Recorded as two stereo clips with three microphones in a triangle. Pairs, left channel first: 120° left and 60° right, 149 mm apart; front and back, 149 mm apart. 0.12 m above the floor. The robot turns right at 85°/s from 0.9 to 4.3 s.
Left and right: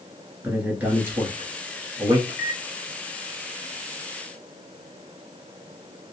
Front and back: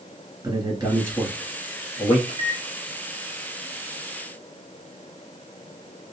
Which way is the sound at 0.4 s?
135° right.